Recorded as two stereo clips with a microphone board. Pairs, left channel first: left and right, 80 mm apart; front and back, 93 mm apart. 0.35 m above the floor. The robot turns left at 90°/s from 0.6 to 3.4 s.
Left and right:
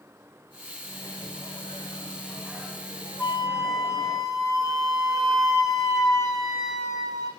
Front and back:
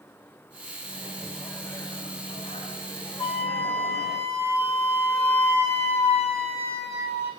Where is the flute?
15° left, 3 m; by 7.3 s 5° right, 3 m.